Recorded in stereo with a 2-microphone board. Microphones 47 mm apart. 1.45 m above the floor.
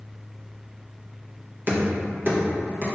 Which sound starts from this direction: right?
Knocking, at 1.7 s.